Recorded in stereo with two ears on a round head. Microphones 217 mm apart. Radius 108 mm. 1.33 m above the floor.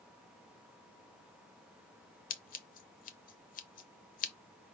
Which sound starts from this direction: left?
Scissors, at 2.3 s.